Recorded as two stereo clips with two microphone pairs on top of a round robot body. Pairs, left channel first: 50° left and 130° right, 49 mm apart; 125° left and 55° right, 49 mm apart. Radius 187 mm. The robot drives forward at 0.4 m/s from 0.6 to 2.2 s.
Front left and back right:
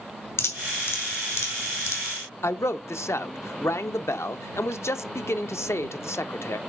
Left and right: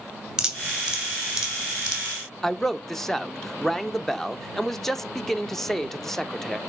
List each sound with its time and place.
0.4 s dripping: 20° left, 2.5 m; by 2.0 s 25° left, 1.8 m
2.4 s a man speaking: 35° left, 0.8 m